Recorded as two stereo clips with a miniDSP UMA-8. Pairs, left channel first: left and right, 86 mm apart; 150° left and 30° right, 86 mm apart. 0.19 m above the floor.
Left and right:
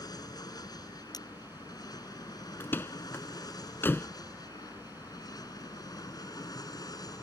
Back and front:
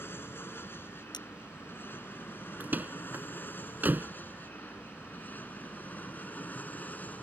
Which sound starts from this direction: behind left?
Cutlery clinking, at 1.1 s.